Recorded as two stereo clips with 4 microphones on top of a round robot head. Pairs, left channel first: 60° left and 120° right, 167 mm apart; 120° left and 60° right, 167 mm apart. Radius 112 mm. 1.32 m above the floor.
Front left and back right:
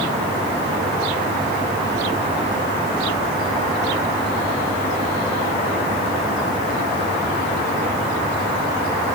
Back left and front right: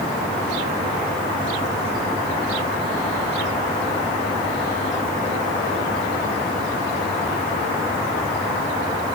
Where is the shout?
I don't hear a shout.